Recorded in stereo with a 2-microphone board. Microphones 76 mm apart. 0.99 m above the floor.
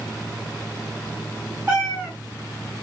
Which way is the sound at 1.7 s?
20° right (ahead or behind).